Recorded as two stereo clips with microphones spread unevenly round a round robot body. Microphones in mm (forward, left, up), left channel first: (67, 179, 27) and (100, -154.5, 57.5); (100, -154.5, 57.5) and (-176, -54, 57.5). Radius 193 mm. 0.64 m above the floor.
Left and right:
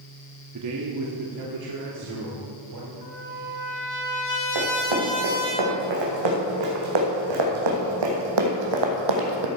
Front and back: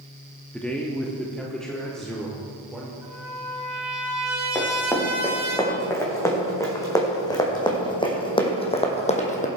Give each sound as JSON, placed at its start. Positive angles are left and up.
{"t": 0.5, "sound": "a man speaking", "azimuth_deg": -105, "distance_m": 1.1}
{"t": 3.0, "sound": "a trumpet", "azimuth_deg": 75, "distance_m": 3.5}
{"t": 4.5, "sound": "running footsteps", "azimuth_deg": -105, "distance_m": 4.5}